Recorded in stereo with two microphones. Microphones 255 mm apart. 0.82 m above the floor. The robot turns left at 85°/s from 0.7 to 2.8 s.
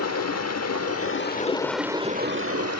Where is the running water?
90° left, 1.0 m; by 2.8 s 90° right, 1.0 m.